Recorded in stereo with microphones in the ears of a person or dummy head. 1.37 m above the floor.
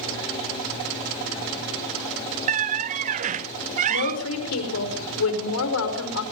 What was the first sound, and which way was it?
A squeak, 40° right (ahead or behind).